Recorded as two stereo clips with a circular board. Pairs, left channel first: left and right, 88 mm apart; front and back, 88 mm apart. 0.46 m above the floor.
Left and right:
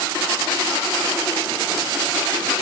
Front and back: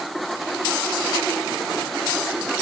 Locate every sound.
Only background noise.